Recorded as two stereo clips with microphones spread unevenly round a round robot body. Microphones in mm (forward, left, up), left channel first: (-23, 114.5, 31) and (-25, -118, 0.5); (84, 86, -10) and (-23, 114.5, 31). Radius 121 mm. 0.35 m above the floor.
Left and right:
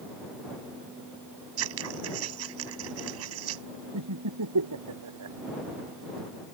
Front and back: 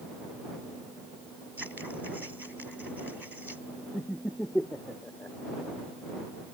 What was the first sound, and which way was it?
Scissors, 105° right.